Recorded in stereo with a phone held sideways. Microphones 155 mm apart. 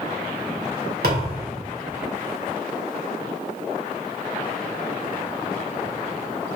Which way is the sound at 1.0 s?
80° right.